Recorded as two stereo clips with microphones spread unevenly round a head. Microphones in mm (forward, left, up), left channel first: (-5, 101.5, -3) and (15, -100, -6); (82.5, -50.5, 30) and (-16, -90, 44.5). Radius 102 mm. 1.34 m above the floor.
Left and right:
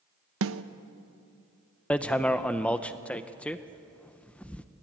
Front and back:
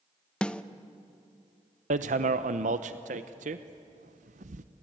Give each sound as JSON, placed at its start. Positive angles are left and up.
{"t": 0.4, "sound": "a snare drum", "azimuth_deg": -60, "distance_m": 0.9}
{"t": 1.9, "sound": "hammering", "azimuth_deg": 180, "distance_m": 0.7}